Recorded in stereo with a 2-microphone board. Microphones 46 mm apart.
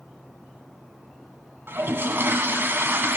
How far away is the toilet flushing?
About 0.6 m.